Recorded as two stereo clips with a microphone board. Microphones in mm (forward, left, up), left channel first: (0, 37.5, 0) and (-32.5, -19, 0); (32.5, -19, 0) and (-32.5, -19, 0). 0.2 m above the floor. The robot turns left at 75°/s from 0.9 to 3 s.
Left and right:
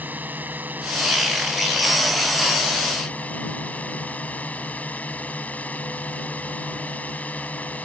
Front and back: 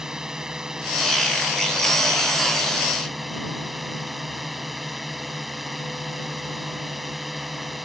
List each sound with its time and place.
0.0 s a drone: 110° right; by 7.8 s 90° left